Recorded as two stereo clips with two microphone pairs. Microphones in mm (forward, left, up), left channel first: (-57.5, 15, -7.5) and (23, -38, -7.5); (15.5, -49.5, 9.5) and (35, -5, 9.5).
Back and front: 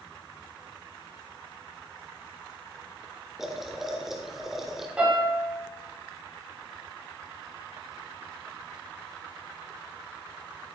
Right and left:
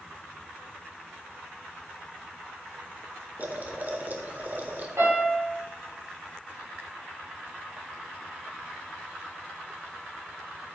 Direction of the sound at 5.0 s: 45° left.